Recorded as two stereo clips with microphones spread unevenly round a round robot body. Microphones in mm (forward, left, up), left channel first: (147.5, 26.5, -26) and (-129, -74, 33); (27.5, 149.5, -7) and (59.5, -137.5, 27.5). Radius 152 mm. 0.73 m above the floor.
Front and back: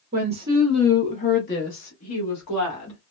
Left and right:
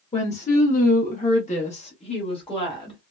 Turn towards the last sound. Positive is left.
turn(degrees=25)